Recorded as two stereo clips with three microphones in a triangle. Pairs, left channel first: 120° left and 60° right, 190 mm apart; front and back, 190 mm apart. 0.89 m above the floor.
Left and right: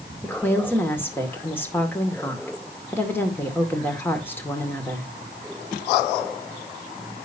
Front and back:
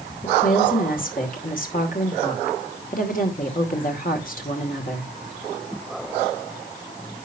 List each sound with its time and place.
0.2 s a woman speaking: 40° left, 2.5 m